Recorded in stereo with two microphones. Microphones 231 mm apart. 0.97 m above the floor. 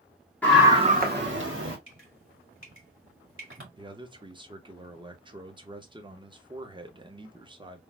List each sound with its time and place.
0.4 s a scream: 5° left (ahead or behind), 0.9 m; by 1.8 s 60° right (ahead or behind), 1.8 m
1.9 s dripping: 60° right (ahead or behind), 2.0 m
3.8 s a man speaking: 20° right (ahead or behind), 0.7 m